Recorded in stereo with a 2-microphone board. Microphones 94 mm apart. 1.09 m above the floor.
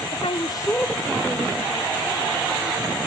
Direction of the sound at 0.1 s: 80° left.